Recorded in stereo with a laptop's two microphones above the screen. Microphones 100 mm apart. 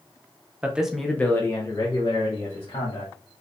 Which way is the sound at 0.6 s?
15° right (ahead or behind).